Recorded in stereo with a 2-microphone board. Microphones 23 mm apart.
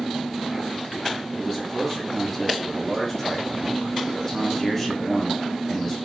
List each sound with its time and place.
1.4 s a man speaking: 15° left (ahead or behind), 1.0 m